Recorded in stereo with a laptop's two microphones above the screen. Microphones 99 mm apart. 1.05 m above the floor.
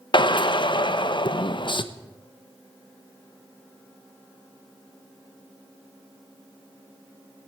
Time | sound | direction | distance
0.1 | a drill | 55° left (ahead or behind) | 0.9 m